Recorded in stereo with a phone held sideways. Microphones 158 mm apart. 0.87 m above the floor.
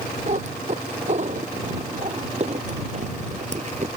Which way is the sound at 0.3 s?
45° right (ahead or behind).